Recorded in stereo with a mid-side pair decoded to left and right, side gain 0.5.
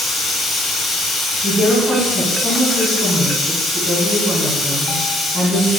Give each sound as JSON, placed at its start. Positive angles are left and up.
{"t": 0.0, "sound": "running water", "azimuth_deg": 65, "distance_m": 1.5}
{"t": 1.4, "sound": "a woman speaking", "azimuth_deg": 30, "distance_m": 1.8}